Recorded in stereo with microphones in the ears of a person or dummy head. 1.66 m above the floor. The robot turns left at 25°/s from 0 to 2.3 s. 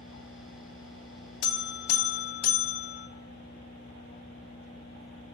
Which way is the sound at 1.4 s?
70° left (ahead or behind).